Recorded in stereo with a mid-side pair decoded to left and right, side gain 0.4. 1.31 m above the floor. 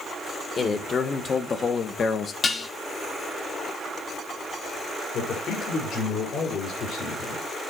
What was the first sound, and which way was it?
A man speaking, 45° left.